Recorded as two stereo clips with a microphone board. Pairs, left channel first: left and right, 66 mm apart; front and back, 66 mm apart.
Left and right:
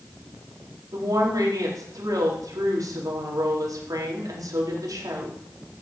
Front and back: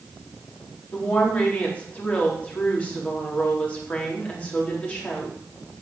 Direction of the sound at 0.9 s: 70° right.